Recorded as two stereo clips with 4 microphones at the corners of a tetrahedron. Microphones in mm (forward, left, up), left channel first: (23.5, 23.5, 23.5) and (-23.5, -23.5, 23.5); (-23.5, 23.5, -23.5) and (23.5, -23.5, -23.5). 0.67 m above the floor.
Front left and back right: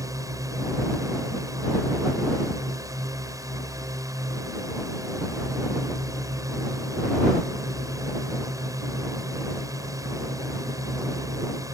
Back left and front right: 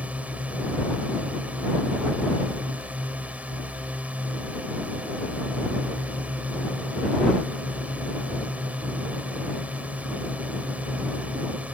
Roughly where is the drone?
Right.